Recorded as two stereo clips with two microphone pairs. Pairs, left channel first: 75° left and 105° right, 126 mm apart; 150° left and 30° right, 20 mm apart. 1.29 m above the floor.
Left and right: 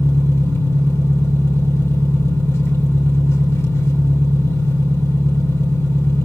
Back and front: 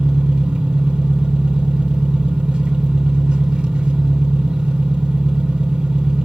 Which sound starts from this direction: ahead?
An engine running, at 0.0 s.